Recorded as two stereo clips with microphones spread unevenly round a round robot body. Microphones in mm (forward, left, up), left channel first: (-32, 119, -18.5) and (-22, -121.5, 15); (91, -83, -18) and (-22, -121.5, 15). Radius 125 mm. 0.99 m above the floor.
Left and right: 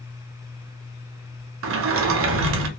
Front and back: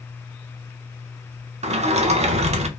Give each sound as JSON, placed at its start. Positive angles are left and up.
{"t": 1.6, "sound": "a sliding door", "azimuth_deg": -120, "distance_m": 0.5}